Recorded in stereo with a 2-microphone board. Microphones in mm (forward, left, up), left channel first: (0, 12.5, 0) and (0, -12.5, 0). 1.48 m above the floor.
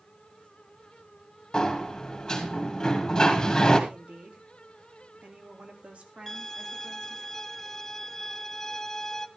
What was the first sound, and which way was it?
A sliding door, 20° left (ahead or behind).